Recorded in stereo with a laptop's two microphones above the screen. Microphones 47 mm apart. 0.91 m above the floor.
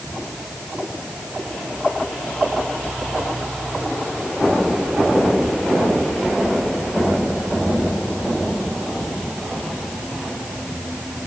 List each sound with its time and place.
Only background noise.